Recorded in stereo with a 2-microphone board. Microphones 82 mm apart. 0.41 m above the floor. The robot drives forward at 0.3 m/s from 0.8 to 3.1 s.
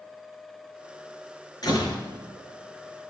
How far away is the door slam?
About 4.5 m.